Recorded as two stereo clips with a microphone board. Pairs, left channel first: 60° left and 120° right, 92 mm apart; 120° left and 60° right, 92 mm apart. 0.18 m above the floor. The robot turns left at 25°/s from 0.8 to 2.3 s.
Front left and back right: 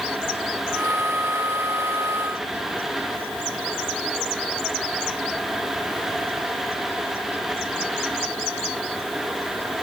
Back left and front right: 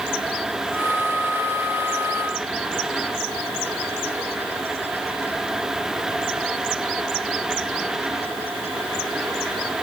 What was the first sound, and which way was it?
Only background noise.